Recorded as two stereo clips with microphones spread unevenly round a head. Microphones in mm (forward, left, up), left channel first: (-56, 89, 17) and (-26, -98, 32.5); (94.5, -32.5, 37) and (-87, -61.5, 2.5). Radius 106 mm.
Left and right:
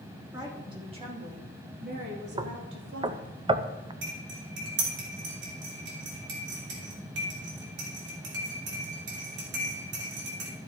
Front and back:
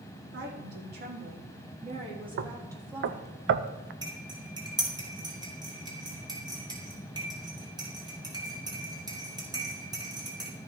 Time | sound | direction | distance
0.3 | a woman speaking | 150° right | 3.5 m
2.4 | knocking | 145° right | 0.6 m
4.0 | cutlery clinking | 100° right | 3 m